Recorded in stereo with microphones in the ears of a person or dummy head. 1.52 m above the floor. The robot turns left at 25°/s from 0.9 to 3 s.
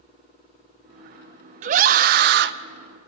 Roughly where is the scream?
Right.